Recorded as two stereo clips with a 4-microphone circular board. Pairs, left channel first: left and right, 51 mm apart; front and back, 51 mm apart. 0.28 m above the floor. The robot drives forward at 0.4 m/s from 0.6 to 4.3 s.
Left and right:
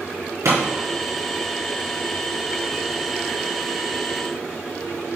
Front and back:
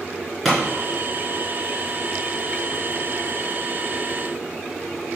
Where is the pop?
85° right, 4 m.